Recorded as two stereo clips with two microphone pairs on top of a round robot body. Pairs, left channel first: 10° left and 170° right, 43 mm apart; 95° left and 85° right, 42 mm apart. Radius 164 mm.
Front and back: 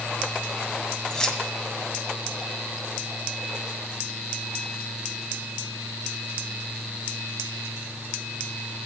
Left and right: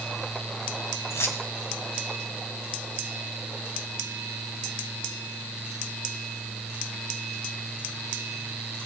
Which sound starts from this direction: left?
Keys jangling, at 1.1 s.